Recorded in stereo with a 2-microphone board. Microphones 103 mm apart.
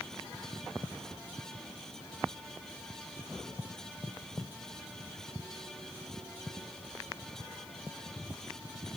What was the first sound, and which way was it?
Only background noise.